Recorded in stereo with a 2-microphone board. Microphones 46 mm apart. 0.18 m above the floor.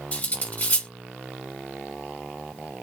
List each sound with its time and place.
0.1 s cutlery clinking: 35° left (ahead or behind), 1.2 m